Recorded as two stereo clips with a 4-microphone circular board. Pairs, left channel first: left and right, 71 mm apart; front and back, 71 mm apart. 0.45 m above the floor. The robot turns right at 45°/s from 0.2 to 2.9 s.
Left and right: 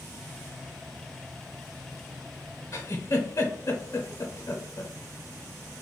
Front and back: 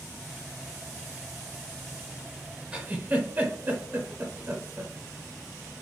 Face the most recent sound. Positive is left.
turn(degrees=120)